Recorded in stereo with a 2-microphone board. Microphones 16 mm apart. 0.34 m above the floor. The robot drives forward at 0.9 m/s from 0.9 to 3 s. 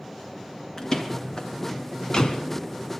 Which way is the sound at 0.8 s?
40° left (ahead or behind).